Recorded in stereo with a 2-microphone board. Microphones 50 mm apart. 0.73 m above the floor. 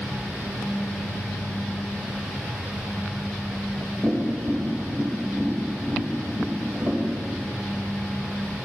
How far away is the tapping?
About 2.5 m.